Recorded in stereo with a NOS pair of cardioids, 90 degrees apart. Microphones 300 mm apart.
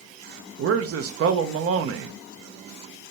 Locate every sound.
0.6 s a man speaking: 50° right, 0.8 m